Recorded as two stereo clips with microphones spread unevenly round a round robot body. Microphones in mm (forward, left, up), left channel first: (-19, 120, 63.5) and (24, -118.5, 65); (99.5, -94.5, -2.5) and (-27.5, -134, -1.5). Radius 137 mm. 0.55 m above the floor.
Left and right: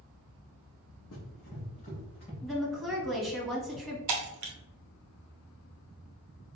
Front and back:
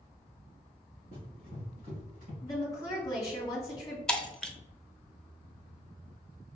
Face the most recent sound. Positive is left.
turn(degrees=-65)